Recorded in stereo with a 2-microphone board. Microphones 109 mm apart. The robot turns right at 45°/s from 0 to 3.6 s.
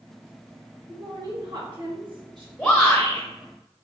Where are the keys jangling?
No keys jangling in this recording.